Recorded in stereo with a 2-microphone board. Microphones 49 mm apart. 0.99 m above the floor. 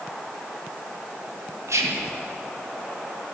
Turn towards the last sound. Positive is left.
turn(degrees=-75)  # may be behind; listen again after turning